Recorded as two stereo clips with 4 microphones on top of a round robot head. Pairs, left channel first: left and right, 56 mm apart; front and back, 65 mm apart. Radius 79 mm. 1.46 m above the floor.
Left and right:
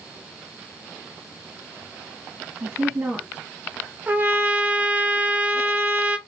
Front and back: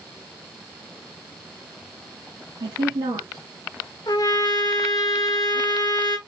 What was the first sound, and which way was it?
A woman speaking, 160° right.